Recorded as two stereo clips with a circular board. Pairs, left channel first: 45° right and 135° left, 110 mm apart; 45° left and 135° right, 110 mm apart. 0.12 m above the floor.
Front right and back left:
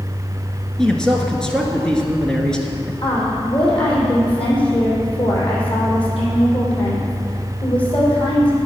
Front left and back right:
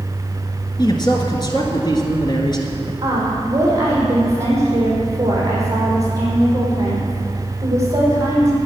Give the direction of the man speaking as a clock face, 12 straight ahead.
11 o'clock.